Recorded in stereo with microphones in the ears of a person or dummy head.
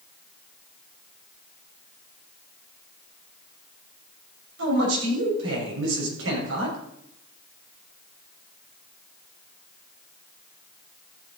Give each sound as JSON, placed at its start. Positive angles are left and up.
{"t": 4.6, "sound": "a man speaking", "side_deg": -75, "distance_m": 6.5}